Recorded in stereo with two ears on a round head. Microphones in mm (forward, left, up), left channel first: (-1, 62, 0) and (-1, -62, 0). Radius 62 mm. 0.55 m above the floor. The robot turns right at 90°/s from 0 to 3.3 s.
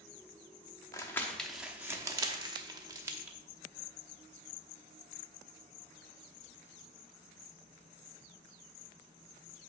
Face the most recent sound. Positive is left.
turn(degrees=-10)  # may be behind; listen again after turning